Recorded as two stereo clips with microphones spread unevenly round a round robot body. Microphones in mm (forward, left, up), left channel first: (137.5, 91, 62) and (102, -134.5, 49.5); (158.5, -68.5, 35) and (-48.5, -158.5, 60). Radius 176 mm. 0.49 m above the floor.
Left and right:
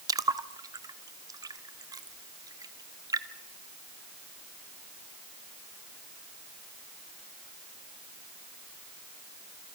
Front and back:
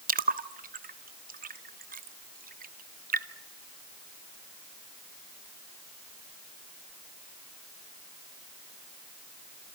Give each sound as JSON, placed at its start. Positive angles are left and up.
{"t": 0.1, "sound": "a splash", "azimuth_deg": -150, "distance_m": 1.0}